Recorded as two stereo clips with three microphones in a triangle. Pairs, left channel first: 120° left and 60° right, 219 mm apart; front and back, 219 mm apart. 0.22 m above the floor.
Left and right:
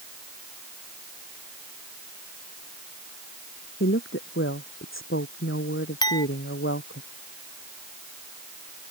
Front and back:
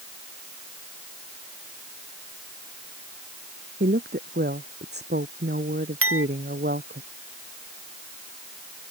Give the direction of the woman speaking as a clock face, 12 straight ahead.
7 o'clock.